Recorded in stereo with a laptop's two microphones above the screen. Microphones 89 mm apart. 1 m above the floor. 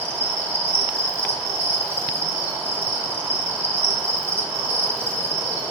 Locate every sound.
0.0 s an insect: 30° right (ahead or behind), 1.4 m